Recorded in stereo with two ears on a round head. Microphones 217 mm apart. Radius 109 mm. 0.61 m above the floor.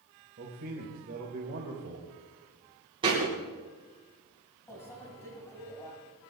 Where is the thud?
20° right (ahead or behind), 6.5 m.